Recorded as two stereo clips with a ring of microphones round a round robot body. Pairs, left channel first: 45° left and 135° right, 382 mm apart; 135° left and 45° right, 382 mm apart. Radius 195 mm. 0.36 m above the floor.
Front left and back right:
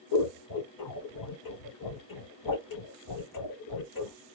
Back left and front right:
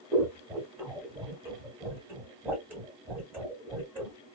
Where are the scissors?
40° left, 1.4 m.